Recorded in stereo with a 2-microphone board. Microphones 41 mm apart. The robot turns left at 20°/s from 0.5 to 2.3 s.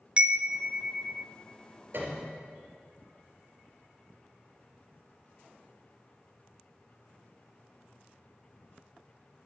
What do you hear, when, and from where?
0.2 s a chime: 25° right (ahead or behind), 0.8 m; by 1.3 s 10° right (ahead or behind), 0.8 m
1.9 s a piano: 60° right (ahead or behind), 3 m; by 2.4 s 50° right (ahead or behind), 3 m